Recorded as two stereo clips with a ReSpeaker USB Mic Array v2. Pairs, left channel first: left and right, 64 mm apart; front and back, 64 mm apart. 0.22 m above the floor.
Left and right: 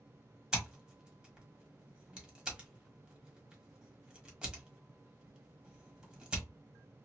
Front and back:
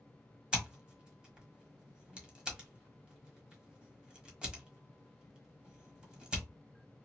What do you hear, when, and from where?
0.5 s scissors: 140° right, 1.3 m